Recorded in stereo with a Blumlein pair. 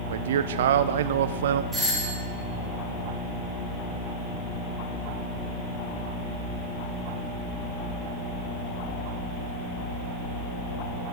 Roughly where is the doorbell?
Ahead.